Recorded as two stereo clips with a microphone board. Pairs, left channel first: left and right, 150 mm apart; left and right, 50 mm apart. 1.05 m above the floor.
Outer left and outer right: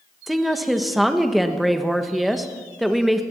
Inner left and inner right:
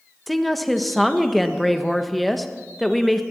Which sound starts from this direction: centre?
A woman speaking, at 0.3 s.